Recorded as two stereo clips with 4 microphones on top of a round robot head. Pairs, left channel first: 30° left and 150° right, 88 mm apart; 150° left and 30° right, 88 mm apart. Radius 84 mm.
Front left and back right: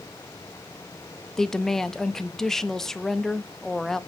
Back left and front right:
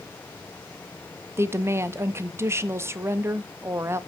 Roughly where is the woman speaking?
Ahead right.